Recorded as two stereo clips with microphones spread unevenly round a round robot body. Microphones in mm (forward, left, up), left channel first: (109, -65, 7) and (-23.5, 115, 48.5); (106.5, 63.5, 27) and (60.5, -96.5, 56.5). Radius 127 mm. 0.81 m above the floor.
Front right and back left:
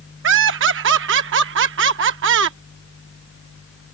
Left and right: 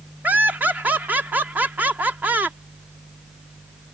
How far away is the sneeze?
No sneeze in this recording.